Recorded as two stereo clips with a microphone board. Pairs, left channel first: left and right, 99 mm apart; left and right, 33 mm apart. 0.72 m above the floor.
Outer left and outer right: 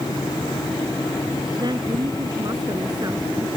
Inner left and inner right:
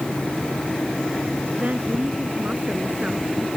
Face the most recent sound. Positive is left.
turn(degrees=-45)  # may be behind; listen again after turning